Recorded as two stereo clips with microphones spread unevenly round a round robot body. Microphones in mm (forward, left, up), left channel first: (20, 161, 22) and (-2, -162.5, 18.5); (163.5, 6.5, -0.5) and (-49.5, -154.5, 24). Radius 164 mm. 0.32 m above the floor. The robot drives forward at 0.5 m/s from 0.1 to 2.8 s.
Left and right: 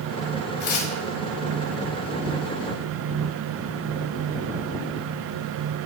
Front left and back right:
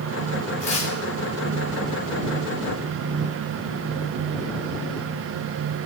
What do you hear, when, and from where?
0.6 s tearing paper: 95° left, 2 m; by 0.9 s 100° left, 2 m